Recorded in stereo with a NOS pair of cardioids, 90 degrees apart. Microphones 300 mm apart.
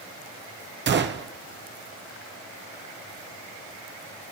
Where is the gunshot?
35° right, 0.9 m.